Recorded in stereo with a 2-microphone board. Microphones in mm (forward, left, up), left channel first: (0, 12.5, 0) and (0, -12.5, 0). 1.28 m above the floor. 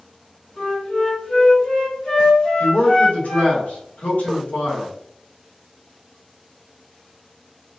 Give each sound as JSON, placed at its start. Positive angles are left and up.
{"t": 0.6, "sound": "a flute", "side_deg": 45, "distance_m": 1.8}
{"t": 2.6, "sound": "a man speaking", "side_deg": 85, "distance_m": 1.4}